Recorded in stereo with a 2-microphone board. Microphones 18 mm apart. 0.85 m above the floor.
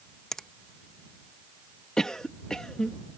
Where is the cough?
45° left (ahead or behind).